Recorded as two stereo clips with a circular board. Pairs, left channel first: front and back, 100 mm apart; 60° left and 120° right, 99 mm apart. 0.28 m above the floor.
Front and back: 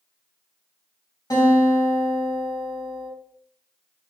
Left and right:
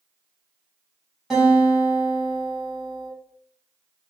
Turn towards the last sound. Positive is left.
turn(degrees=-35)